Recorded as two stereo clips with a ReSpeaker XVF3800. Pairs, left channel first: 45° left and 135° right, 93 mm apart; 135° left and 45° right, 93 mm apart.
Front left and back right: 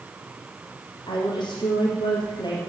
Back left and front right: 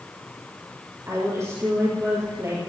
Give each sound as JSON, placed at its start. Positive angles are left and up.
{"t": 1.1, "sound": "a woman speaking", "azimuth_deg": 10, "distance_m": 3.5}